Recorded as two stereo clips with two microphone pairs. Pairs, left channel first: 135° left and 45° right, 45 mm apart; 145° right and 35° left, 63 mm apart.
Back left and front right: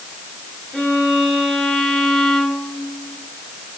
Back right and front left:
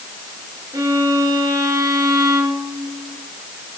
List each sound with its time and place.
0.7 s a violin: 60° left, 8.5 m